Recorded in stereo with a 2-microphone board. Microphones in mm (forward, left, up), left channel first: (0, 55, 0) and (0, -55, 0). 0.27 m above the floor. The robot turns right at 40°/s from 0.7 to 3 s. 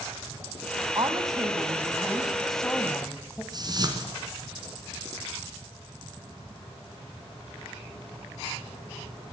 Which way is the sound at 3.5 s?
40° right (ahead or behind).